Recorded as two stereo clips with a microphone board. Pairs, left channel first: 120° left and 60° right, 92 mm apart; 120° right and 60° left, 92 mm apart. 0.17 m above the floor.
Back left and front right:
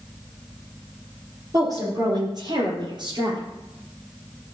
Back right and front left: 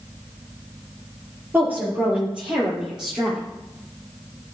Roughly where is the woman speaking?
Ahead.